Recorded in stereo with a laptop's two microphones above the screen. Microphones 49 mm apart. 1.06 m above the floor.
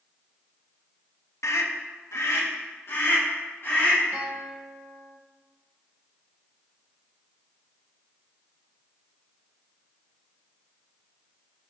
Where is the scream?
75° left (ahead or behind), 0.9 m; by 4.0 s 45° left (ahead or behind), 2.5 m.